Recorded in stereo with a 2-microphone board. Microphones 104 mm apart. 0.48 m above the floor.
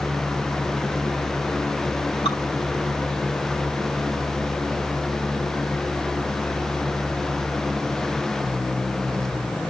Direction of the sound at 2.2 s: 60° left (ahead or behind).